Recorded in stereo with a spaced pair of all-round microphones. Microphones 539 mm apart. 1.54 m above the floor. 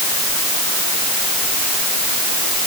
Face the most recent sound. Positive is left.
No sound to turn to.